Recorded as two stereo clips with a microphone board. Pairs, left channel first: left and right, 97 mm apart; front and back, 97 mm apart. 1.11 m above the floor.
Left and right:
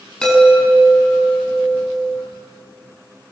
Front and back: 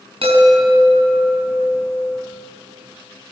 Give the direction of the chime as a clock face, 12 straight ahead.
6 o'clock.